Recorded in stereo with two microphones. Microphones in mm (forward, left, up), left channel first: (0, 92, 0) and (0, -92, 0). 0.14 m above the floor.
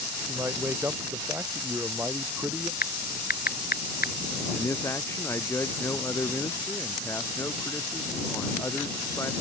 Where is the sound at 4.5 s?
15° left (ahead or behind).